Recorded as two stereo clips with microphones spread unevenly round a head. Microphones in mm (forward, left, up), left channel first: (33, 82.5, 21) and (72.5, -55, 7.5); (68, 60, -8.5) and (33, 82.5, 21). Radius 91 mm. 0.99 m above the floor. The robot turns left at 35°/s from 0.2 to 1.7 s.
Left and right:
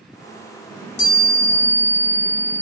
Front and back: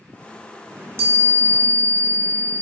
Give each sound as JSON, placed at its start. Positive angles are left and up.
{"t": 0.7, "sound": "a chime", "azimuth_deg": 130, "distance_m": 4.0}